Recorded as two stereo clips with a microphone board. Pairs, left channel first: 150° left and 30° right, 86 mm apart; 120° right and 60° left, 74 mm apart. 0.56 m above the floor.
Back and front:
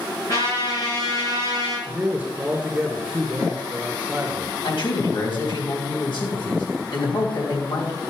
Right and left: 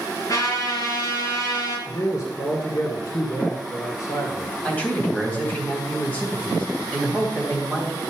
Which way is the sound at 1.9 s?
100° right.